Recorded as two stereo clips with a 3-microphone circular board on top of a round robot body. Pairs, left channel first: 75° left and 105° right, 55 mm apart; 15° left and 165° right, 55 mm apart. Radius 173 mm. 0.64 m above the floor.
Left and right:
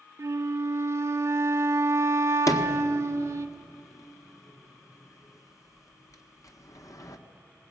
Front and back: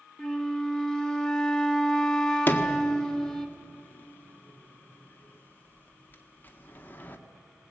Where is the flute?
65° right, 0.5 m.